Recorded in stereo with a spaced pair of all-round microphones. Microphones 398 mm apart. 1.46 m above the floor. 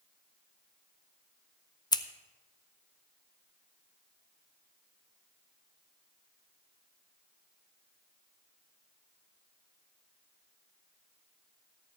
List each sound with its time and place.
1.9 s scissors: 10° left (ahead or behind), 0.5 m